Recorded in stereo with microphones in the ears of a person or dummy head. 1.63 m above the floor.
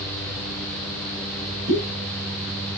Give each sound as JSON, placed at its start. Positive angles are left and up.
{"t": 1.7, "sound": "a pop", "side_deg": -45, "distance_m": 6.0}